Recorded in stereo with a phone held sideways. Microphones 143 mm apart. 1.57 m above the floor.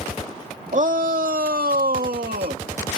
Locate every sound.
0.7 s a shout: 55° right (ahead or behind); by 2.6 s 75° right (ahead or behind)